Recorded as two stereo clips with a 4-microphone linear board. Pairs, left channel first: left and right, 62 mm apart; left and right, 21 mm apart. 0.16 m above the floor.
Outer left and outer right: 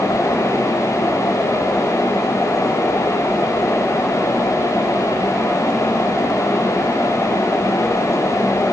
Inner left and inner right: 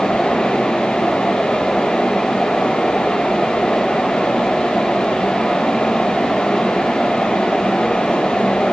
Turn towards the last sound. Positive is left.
No sound to turn to.